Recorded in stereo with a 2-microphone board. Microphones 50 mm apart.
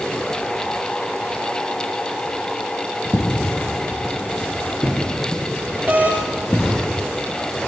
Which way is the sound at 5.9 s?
35° right (ahead or behind).